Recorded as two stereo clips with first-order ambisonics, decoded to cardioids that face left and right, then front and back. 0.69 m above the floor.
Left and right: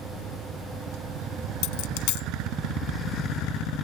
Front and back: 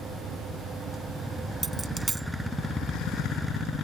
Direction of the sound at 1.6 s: 100° left.